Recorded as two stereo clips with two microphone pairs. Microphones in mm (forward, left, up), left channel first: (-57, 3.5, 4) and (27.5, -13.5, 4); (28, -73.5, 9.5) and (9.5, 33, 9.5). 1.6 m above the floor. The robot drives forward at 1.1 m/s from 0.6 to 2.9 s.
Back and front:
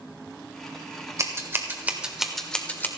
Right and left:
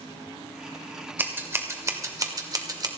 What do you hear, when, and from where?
1.2 s scissors: 35° left, 2 m; by 2.9 s 120° left, 1.5 m